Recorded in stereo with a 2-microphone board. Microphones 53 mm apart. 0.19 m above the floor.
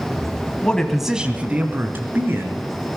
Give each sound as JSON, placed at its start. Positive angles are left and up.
{"t": 0.6, "sound": "a man speaking", "side_deg": 20, "distance_m": 1.1}